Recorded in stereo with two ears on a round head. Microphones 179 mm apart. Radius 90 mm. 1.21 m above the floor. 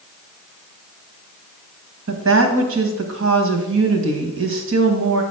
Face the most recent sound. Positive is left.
turn(degrees=-65)  # may be behind; listen again after turning